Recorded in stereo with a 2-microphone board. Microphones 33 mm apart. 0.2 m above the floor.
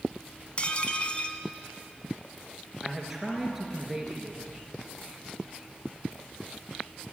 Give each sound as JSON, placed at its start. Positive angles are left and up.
{"t": 0.6, "sound": "dishes clattering", "side_deg": 35, "distance_m": 1.1}
{"t": 2.8, "sound": "a man speaking", "side_deg": -10, "distance_m": 3.5}